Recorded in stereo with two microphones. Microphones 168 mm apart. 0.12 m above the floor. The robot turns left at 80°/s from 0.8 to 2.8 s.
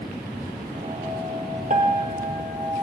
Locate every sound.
1.7 s a piano: 55° right, 1.9 m; by 2.8 s 145° right, 1.9 m